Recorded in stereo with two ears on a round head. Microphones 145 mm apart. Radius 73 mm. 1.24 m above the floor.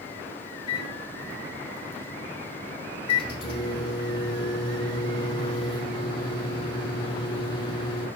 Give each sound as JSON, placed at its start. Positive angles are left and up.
{"t": 0.7, "sound": "a microwave", "side_deg": 35, "distance_m": 4.0}